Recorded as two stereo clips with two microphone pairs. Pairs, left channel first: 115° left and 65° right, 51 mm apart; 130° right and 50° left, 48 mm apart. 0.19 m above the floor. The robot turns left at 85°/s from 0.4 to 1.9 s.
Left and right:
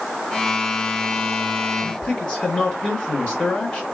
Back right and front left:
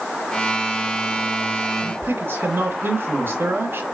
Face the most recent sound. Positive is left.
turn(degrees=60)